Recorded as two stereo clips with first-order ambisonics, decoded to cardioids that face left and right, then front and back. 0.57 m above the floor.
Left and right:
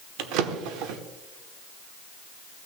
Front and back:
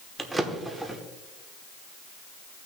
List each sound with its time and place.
0.2 s a drawer: 95° right, 0.8 m